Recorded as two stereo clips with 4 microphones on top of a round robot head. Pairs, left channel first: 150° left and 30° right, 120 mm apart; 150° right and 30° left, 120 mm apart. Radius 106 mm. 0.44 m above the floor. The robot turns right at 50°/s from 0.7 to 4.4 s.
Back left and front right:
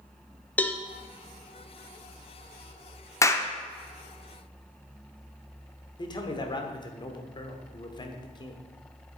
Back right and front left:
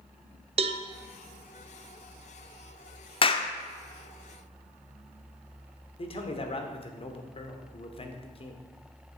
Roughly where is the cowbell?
Left.